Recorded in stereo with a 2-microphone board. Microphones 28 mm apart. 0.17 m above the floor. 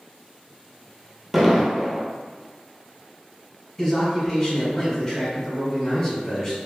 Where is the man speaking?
20° left (ahead or behind), 1.8 m.